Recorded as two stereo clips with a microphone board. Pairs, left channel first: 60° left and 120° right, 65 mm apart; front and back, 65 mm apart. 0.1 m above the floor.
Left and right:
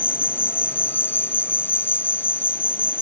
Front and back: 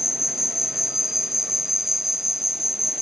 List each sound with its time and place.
0.0 s an insect: 95° left